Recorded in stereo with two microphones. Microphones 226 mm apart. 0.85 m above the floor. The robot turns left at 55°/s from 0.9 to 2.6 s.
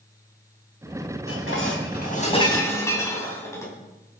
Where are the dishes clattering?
85° left, 4 m; by 3.7 s 15° left, 4 m.